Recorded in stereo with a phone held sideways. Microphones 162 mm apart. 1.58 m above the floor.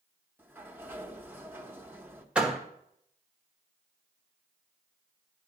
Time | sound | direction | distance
0.4 | a sliding door | 15° right (ahead or behind) | 0.9 m
2.4 | a door slam | 5° right (ahead or behind) | 1.2 m